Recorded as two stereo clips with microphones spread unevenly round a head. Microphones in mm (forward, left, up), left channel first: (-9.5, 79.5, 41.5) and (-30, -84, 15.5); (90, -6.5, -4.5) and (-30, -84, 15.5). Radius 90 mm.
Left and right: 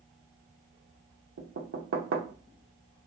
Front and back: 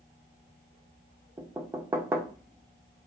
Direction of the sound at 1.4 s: 80° right.